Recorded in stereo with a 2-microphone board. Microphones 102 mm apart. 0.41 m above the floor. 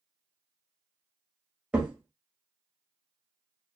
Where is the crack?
10° right (ahead or behind), 1.1 m.